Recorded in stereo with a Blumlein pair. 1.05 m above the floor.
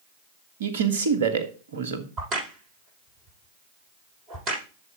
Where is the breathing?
No breathing in this recording.